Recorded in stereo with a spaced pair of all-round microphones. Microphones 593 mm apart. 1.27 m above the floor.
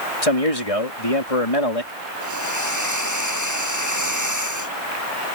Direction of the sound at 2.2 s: 30° right (ahead or behind).